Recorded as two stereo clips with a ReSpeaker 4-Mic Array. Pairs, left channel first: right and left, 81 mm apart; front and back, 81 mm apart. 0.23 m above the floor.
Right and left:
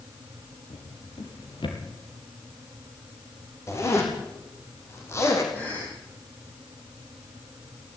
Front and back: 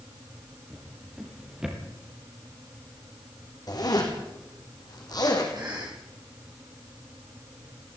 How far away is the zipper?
About 4.5 m.